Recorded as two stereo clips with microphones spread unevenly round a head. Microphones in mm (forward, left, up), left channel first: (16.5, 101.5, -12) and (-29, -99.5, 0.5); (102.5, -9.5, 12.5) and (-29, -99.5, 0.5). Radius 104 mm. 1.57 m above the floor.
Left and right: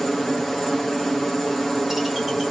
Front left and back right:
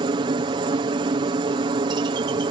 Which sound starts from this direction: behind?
A helicopter, at 0.0 s.